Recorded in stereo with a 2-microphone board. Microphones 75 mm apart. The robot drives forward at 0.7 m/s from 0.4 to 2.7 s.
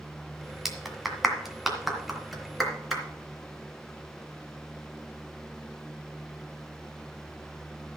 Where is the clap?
5° right (ahead or behind), 1.7 m; by 3.0 s centre (ahead or behind), 3 m.